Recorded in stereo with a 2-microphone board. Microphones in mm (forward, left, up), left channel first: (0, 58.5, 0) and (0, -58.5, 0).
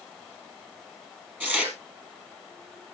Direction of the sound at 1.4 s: 15° right (ahead or behind).